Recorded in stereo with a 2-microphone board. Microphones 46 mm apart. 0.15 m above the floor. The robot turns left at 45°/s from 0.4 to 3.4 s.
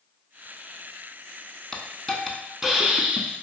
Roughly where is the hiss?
Centre.